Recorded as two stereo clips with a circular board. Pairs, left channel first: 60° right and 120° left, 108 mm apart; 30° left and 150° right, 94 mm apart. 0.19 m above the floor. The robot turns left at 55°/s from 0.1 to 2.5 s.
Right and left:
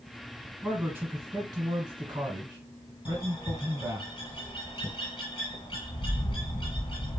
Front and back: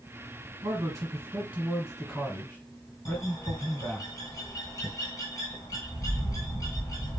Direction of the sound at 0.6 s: 165° right.